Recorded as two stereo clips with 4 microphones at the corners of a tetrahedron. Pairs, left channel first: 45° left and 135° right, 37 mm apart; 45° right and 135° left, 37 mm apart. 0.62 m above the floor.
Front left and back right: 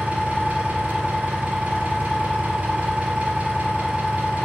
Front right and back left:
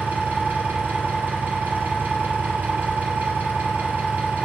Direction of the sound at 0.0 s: 170° left.